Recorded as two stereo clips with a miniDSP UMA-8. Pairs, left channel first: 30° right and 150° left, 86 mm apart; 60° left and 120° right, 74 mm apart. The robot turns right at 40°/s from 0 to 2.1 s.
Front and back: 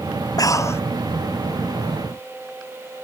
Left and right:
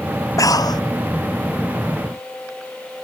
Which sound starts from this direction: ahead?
Breathing, at 0.4 s.